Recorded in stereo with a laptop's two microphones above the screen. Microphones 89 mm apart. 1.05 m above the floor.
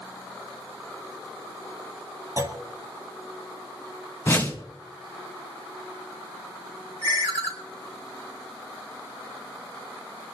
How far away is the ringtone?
About 3 m.